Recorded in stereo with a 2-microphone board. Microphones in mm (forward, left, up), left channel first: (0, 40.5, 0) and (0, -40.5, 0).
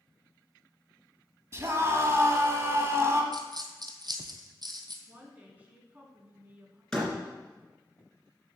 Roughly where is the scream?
Right.